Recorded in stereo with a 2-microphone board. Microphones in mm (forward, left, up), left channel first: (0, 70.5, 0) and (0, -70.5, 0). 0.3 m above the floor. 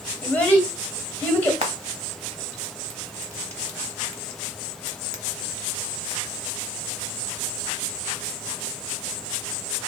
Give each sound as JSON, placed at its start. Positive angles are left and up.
{"t": 0.2, "sound": "a child speaking", "side_deg": 15, "distance_m": 1.2}
{"t": 1.6, "sound": "frying", "side_deg": -50, "distance_m": 0.8}